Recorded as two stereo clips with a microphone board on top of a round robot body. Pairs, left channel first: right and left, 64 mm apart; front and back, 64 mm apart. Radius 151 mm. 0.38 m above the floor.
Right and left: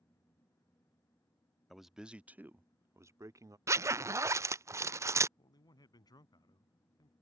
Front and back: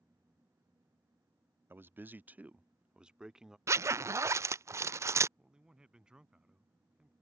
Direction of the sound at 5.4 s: 105° right.